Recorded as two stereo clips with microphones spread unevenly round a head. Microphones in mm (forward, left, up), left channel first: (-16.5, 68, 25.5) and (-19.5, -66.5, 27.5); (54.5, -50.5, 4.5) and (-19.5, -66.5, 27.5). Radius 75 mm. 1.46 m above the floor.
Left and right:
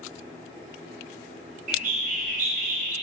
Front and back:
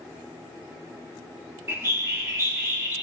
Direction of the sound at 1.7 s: 115° right.